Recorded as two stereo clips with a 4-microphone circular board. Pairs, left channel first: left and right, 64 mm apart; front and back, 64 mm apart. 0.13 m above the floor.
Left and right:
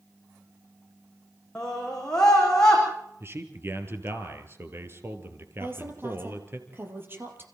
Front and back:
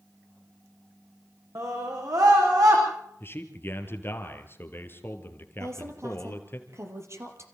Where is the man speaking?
45° right, 3 m.